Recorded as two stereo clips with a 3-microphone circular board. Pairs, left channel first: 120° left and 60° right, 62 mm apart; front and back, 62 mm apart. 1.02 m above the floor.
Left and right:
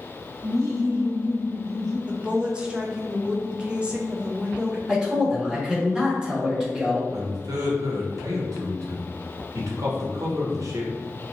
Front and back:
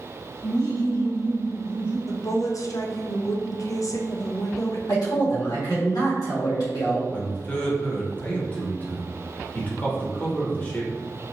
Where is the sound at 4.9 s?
20° left, 1.6 m.